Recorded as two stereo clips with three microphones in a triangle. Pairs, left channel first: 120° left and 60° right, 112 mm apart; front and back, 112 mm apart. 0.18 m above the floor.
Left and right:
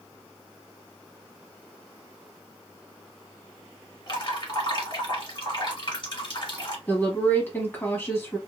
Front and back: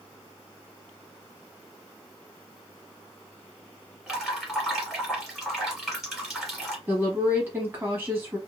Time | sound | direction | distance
4.1 | dripping | 95° left | 1.4 m
6.9 | a woman speaking | 150° left | 1.0 m